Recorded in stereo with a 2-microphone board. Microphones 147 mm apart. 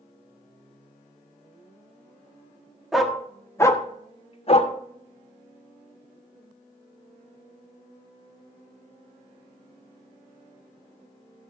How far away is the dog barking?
About 1.2 m.